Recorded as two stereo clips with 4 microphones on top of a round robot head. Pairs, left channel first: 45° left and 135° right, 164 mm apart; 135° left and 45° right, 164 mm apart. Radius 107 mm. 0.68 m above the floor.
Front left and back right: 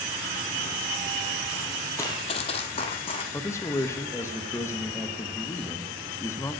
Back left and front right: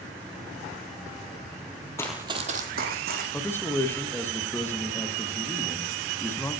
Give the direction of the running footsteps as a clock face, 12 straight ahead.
9 o'clock.